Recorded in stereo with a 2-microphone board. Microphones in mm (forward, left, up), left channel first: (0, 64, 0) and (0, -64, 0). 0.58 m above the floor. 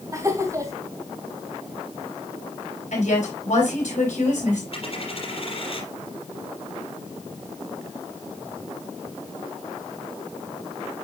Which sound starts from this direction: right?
Laughter, at 0.1 s.